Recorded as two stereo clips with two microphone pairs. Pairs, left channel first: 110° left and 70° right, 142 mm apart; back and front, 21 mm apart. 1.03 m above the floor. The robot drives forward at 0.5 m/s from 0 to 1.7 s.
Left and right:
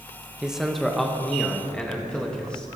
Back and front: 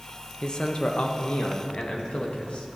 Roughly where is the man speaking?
Behind right.